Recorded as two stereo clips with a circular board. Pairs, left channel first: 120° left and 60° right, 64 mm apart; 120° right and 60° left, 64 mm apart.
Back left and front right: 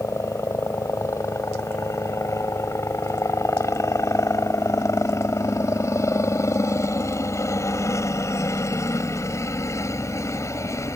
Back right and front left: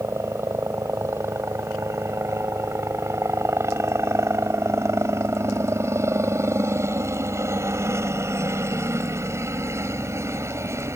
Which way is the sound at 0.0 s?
95° left.